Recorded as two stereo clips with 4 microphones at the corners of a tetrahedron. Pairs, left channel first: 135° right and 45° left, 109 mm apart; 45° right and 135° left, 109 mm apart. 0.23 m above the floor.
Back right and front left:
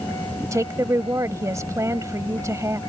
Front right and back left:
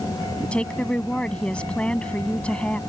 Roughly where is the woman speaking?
Ahead left.